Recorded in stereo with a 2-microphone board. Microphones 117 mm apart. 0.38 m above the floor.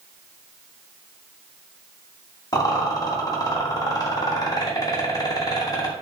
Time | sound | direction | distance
2.5 | a rattle | 30° left (ahead or behind) | 0.8 m